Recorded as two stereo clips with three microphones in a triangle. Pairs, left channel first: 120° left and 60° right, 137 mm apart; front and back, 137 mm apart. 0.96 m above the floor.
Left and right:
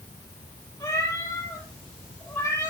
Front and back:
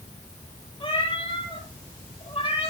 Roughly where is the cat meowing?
Ahead left.